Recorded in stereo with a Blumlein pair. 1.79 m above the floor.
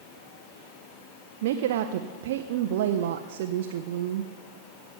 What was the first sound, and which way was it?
A woman speaking, 55° right.